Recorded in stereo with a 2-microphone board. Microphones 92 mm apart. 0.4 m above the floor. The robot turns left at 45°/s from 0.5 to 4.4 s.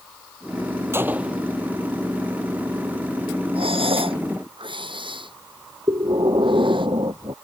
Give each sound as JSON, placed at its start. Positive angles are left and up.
{"t": 0.9, "sound": "a gunshot", "side_deg": -25}
{"t": 3.5, "sound": "breathing", "side_deg": -80}
{"t": 5.9, "sound": "breathing", "side_deg": -60}